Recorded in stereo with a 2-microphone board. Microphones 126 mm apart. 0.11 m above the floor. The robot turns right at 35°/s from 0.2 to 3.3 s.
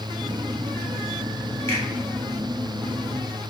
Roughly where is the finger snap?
Left.